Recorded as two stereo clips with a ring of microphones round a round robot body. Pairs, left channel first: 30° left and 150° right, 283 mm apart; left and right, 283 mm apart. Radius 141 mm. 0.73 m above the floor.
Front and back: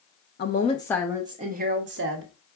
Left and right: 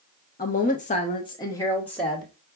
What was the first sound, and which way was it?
A woman speaking, 50° left.